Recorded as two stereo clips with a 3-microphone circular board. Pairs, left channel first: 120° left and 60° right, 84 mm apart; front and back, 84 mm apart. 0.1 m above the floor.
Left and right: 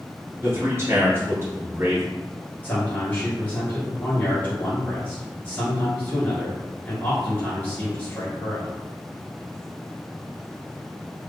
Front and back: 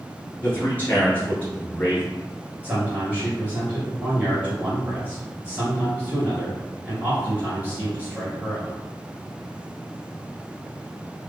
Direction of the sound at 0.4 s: 50° right.